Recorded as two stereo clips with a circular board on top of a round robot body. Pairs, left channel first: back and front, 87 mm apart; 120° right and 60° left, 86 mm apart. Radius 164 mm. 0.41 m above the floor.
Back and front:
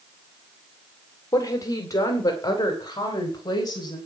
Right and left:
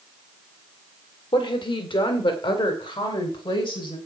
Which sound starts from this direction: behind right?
A woman speaking, at 1.3 s.